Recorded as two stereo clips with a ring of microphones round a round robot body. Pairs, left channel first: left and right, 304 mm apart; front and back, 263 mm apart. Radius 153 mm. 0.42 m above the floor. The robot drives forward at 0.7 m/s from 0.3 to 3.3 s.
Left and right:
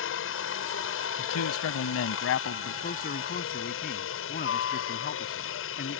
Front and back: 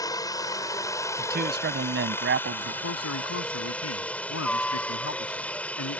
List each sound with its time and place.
0.0 s a helicopter: 70° left; by 6.0 s 80° left
1.2 s a man speaking: 125° left; by 2.7 s 140° left
2.8 s a man speaking: 25° left; by 6.0 s 30° left